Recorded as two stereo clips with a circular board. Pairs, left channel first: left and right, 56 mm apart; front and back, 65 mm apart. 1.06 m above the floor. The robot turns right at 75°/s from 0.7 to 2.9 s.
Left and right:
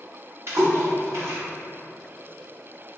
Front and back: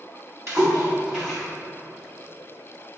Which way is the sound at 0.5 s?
135° right.